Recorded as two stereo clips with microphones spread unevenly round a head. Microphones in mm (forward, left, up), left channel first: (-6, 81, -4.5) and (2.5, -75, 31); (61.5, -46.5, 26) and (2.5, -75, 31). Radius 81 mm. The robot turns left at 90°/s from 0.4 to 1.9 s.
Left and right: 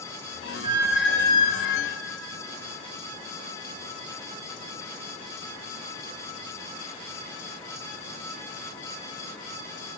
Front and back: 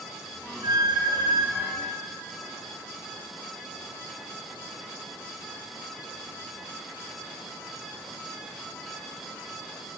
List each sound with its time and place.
0.6 s a squeak: 135° right, 2 m; by 1.8 s 115° left, 2 m